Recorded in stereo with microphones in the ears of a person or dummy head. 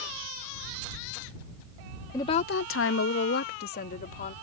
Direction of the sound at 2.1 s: 15° left (ahead or behind).